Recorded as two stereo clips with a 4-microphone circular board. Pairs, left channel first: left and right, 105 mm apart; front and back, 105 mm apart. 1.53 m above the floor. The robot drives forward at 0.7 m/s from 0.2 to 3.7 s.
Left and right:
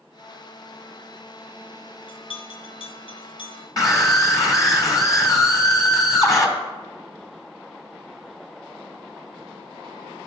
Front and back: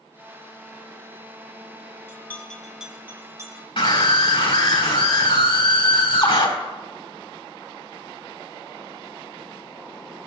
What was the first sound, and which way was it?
A bell, 65° left.